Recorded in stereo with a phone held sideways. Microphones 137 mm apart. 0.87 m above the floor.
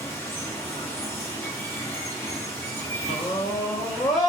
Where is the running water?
15° left (ahead or behind), 1.1 m.